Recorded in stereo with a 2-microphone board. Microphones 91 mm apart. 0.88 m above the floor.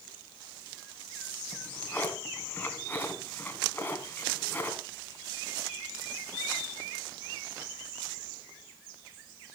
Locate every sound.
1.5 s a drawer: 20° left (ahead or behind), 2.5 m